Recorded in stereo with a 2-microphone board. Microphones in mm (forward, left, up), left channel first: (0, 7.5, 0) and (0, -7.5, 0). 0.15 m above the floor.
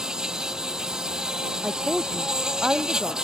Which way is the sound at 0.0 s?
45° right (ahead or behind).